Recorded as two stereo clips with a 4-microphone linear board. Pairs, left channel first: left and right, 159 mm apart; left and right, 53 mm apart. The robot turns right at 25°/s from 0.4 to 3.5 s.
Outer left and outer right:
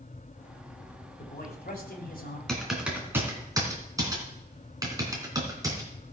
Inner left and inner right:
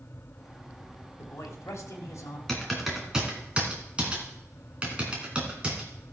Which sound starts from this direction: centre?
Typing on a keyboard, at 2.5 s.